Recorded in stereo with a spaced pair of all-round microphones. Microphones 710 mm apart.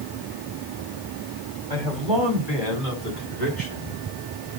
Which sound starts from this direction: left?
A man speaking, at 1.7 s.